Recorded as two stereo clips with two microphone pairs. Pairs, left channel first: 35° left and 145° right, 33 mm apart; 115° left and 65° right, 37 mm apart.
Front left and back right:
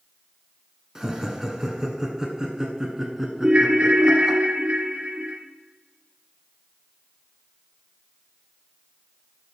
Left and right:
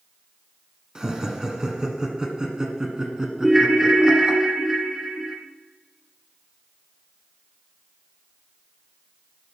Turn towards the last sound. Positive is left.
turn(degrees=-145)